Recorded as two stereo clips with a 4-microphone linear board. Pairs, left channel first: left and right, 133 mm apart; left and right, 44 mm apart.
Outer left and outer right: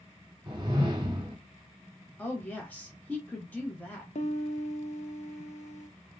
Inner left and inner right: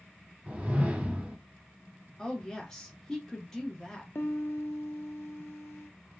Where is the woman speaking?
10° left (ahead or behind), 0.8 m.